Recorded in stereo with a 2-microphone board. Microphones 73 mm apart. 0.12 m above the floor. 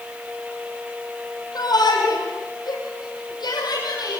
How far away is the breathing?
No breathing in this recording.